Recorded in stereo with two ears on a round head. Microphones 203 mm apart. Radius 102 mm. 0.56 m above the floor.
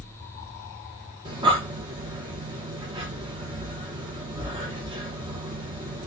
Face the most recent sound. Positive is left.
turn(degrees=-20)  # may be behind; listen again after turning